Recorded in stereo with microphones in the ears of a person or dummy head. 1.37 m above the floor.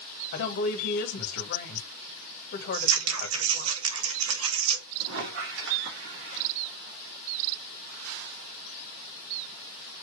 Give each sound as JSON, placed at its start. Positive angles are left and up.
{"t": 0.3, "sound": "a woman speaking", "side_deg": 60, "distance_m": 1.7}
{"t": 2.7, "sound": "scissors", "side_deg": -85, "distance_m": 1.6}
{"t": 5.0, "sound": "a squeak", "side_deg": -70, "distance_m": 1.8}